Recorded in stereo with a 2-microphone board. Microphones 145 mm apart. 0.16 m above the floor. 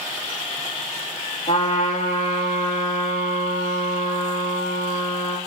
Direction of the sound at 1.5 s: 55° left (ahead or behind).